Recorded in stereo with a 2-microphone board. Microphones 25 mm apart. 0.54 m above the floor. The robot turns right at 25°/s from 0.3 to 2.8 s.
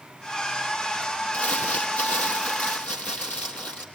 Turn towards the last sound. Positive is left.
turn(degrees=105)